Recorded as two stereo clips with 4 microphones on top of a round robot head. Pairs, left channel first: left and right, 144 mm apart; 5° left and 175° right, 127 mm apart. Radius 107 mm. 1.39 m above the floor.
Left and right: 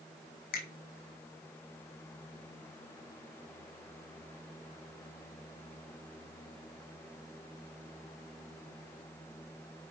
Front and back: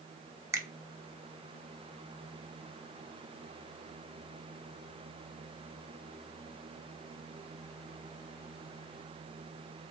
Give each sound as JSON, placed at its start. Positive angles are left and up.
{"t": 0.5, "sound": "a finger snap", "azimuth_deg": 120, "distance_m": 2.5}